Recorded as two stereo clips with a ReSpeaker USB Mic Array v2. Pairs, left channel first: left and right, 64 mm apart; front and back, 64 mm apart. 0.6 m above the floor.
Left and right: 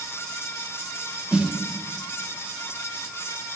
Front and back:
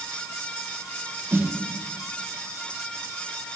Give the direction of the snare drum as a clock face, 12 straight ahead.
5 o'clock.